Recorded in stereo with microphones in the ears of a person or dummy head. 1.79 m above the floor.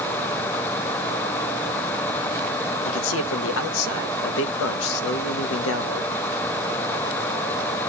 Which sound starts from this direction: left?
A man speaking, at 2.9 s.